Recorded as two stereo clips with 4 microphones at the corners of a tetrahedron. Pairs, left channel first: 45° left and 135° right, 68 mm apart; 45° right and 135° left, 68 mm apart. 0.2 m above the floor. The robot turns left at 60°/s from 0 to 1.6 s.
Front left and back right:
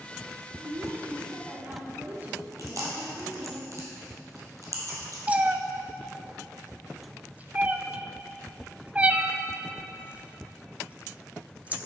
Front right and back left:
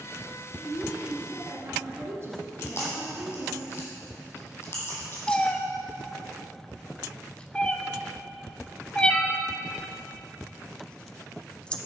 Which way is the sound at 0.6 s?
130° right.